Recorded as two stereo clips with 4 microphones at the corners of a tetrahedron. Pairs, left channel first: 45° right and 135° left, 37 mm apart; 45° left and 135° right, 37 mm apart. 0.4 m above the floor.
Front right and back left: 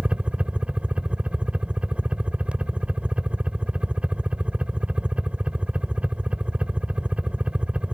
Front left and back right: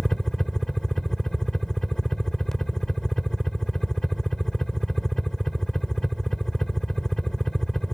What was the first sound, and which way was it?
A helicopter, 110° left.